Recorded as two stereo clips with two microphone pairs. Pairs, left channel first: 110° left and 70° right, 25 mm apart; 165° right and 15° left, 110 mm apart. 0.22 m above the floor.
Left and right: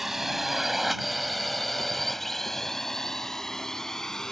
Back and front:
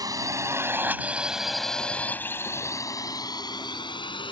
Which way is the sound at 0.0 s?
Straight ahead.